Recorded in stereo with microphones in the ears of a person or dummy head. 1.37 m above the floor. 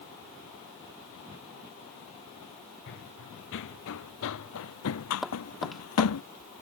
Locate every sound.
2.9 s running footsteps: 65° left (ahead or behind); by 6.2 s 80° left
5.2 s tapping: centre (ahead or behind)